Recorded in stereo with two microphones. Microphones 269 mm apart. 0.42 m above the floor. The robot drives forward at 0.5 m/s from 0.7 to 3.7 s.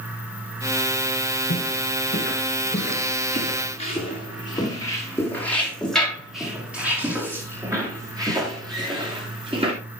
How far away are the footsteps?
About 4 m.